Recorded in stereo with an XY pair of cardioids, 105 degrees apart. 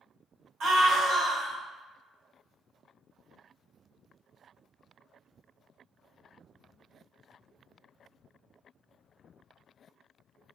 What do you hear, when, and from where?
0.6 s a scream: 65° right, 1.2 m